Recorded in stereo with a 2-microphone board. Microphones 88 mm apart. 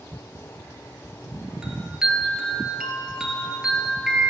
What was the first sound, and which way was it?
A chime, 10° right (ahead or behind).